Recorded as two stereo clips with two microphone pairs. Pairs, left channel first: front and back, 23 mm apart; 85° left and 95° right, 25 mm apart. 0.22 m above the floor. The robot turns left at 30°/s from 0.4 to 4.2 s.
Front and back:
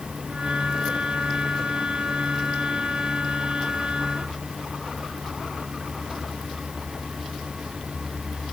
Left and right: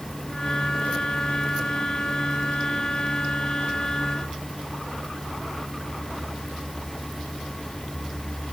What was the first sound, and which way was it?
Only background noise.